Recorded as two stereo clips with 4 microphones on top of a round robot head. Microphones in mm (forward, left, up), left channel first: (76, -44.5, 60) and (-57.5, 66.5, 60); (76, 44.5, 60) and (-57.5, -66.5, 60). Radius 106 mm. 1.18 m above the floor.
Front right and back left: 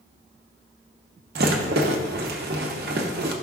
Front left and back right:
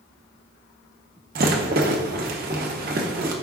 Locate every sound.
1.4 s a rattle: straight behind, 0.9 m